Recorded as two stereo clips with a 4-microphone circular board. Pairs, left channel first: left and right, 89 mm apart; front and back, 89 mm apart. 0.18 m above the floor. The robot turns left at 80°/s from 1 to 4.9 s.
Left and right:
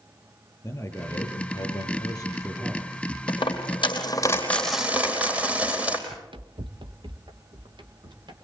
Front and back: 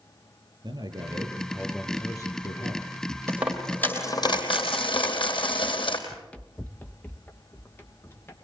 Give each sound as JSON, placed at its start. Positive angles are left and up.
{"t": 0.6, "sound": "a man speaking", "azimuth_deg": 150, "distance_m": 4.5}
{"t": 3.3, "sound": "a dropped coin", "azimuth_deg": 115, "distance_m": 4.0}
{"t": 6.1, "sound": "running footsteps", "azimuth_deg": -80, "distance_m": 0.9}